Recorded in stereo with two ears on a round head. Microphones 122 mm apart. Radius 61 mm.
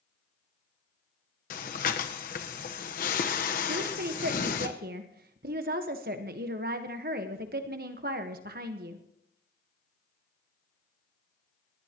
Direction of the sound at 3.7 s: 75° right (ahead or behind).